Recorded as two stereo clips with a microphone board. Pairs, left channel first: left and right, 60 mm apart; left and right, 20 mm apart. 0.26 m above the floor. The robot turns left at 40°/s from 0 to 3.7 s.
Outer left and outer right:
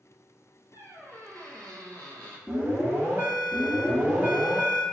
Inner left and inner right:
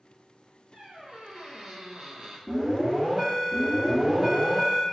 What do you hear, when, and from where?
0.7 s a squeak: 40° right, 1.2 m; by 2.4 s 105° right, 1.2 m
2.5 s an alarm: 80° right, 1.6 m; by 4.8 s 130° right, 1.6 m